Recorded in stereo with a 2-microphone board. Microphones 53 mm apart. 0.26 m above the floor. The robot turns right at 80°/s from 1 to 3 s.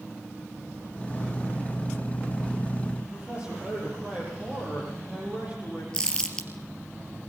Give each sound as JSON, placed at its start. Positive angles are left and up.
{"t": 3.0, "sound": "a man speaking", "side_deg": -25, "distance_m": 10.0}
{"t": 5.9, "sound": "crumpling", "side_deg": 15, "distance_m": 3.0}